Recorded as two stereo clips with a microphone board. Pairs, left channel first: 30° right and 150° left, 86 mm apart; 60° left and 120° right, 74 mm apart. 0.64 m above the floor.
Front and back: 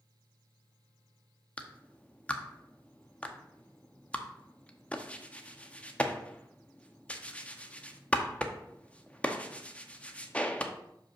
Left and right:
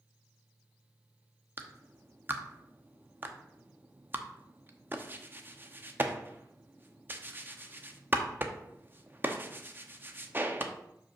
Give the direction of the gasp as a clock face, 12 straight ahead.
No gasp in this recording.